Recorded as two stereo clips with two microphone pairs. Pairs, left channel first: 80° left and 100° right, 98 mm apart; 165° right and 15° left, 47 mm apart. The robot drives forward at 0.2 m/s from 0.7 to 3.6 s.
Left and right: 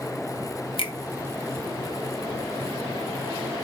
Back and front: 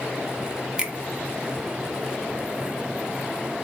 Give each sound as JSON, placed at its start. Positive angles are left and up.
{"t": 0.8, "sound": "a finger snap", "azimuth_deg": 80, "distance_m": 0.7}